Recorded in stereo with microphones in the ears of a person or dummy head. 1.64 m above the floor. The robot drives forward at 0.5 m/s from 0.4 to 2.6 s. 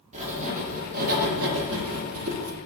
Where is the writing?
40° right (ahead or behind), 1.3 m; by 2.6 s 85° right, 0.9 m.